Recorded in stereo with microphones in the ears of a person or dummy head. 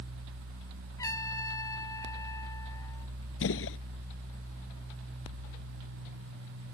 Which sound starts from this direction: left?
A gunshot, at 3.4 s.